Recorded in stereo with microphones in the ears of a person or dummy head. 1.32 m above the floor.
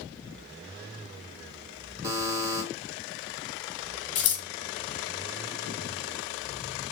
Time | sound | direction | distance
2.0 | a buzzer | 15° right (ahead or behind) | 1.6 m
4.2 | scissors | 30° left (ahead or behind) | 2 m